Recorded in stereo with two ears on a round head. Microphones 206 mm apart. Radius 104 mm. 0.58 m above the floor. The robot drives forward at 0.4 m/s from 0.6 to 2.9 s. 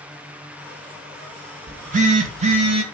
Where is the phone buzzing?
40° right (ahead or behind), 0.8 m; by 2.8 s 25° right (ahead or behind), 1.2 m.